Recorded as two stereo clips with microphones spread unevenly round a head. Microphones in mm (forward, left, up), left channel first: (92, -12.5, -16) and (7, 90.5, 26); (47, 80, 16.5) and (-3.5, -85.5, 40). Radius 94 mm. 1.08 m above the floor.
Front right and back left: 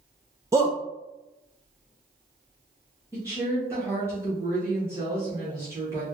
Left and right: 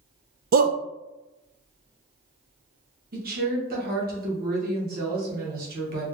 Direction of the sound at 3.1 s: 150° right.